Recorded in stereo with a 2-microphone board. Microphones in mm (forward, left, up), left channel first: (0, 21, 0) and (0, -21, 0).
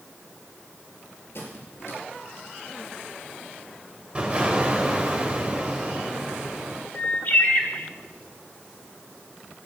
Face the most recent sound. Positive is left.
turn(degrees=45)  # may be behind; listen again after turning